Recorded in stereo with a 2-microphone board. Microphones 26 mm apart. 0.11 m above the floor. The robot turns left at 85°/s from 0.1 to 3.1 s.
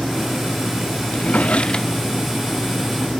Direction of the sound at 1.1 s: 90° left.